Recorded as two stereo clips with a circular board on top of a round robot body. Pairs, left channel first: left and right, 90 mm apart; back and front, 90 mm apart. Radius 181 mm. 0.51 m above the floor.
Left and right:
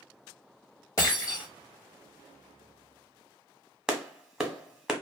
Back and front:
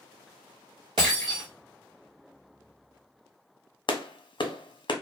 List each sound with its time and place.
1.0 s breaking glass: 35° left, 1.2 m
3.9 s a clap: 170° right, 1.0 m